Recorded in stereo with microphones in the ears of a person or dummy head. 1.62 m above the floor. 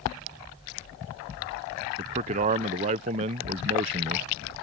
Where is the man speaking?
25° right (ahead or behind).